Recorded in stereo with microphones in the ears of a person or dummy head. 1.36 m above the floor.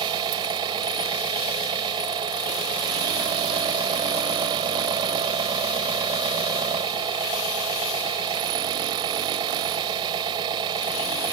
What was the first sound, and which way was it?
An engine running, 25° right (ahead or behind).